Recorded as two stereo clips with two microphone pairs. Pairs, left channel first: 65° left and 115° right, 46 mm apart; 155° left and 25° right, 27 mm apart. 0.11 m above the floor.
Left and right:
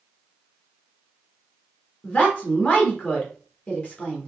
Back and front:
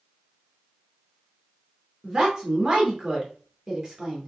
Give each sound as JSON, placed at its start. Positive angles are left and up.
{"t": 2.0, "sound": "a woman speaking", "azimuth_deg": 25, "distance_m": 2.0}